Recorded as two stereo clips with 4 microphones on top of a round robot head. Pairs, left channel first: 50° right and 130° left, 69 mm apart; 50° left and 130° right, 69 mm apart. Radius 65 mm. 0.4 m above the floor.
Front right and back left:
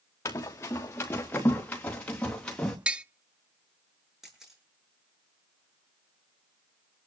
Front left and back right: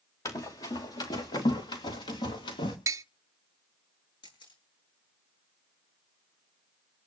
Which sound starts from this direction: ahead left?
A camera shutter, at 4.2 s.